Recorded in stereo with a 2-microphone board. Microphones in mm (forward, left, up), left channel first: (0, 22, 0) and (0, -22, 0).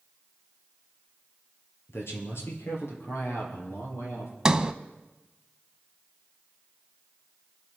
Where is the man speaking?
65° left (ahead or behind), 3.5 m; by 4.3 s 75° left (ahead or behind), 5.5 m.